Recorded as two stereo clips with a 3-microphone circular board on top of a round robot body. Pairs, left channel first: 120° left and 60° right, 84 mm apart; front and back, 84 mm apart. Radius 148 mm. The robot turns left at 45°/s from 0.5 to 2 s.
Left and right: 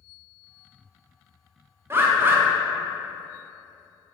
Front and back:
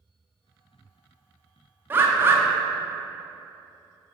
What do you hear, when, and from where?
1.9 s a bird: 115° right, 0.7 m; by 2.4 s 120° right, 0.7 m